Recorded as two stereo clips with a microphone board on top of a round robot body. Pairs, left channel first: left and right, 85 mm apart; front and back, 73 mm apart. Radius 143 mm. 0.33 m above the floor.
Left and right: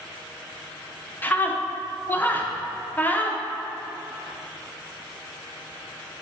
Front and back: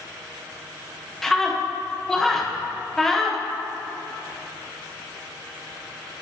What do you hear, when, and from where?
1.2 s a scream: 75° left, 0.9 m